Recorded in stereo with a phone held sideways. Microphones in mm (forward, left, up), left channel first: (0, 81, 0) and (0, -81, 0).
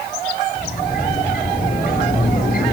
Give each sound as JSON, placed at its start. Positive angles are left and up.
{"t": 0.6, "sound": "a sliding door", "side_deg": 60, "distance_m": 5.5}